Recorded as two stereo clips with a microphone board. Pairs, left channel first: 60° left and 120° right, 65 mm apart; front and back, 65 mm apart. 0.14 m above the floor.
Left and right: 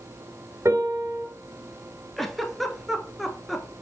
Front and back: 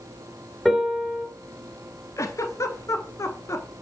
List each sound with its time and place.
0.7 s a piano: 90° right, 2.5 m
2.2 s a giggle: 30° right, 1.1 m